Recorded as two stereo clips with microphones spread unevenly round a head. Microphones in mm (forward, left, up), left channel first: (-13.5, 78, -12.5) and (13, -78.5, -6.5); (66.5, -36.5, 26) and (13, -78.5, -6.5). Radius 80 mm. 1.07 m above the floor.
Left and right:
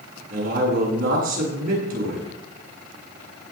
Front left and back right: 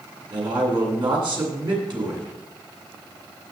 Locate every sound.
0.3 s a man speaking: 120° right, 8.5 m